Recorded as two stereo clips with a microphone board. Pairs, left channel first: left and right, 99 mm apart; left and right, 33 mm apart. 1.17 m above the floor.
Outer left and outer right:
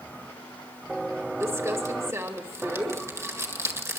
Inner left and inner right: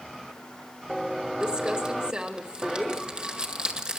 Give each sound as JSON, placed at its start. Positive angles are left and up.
{"t": 1.4, "sound": "crumpling", "side_deg": -30, "distance_m": 1.9}